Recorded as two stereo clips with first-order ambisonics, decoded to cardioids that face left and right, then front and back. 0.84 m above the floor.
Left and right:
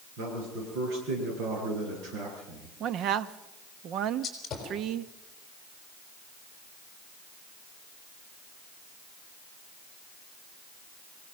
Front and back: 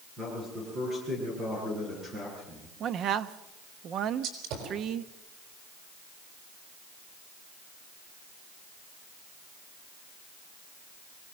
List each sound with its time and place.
0.2 s a man speaking: 115° right, 10 m; by 2.7 s 125° right, 10.5 m
2.8 s a man speaking: 130° right, 0.7 m
4.2 s a gunshot: 160° left, 4.5 m